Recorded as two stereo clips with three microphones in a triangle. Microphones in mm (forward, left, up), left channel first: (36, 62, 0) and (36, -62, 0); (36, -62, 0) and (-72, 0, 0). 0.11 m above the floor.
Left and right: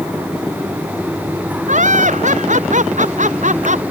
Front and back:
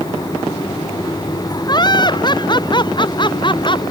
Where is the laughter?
85° right; by 3.8 s 80° right.